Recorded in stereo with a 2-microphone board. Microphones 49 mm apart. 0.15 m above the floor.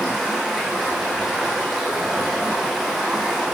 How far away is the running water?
About 2 m.